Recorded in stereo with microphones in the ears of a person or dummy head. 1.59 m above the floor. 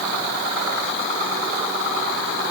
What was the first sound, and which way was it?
Only background noise.